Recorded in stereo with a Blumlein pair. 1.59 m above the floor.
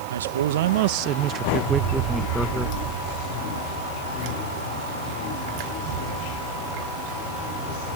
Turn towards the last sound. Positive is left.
turn(degrees=10)